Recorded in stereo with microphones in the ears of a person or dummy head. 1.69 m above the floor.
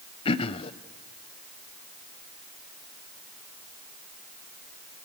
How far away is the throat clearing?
About 0.9 m.